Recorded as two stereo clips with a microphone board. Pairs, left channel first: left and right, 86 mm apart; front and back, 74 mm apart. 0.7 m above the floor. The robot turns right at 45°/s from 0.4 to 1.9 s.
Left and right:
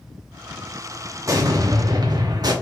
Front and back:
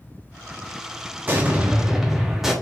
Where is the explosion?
125° right, 1.0 m; by 2.5 s 95° right, 1.0 m.